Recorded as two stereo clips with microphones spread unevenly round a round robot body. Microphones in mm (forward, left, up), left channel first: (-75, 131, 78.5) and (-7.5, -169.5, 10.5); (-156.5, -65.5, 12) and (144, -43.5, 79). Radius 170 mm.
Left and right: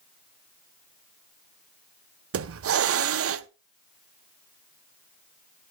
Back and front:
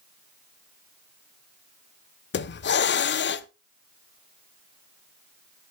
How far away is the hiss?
About 0.7 m.